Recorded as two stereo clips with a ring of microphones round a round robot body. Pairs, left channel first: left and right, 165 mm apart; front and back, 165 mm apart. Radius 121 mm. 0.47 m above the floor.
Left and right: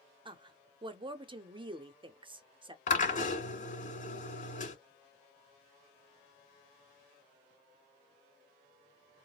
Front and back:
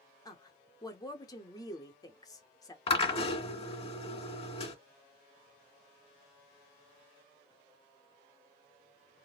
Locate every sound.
0.2 s a woman speaking: 50° right, 0.8 m
2.9 s a drill: 50° left, 2 m